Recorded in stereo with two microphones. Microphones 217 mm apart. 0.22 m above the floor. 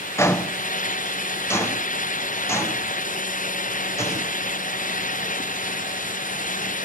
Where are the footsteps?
10° left (ahead or behind), 0.8 m.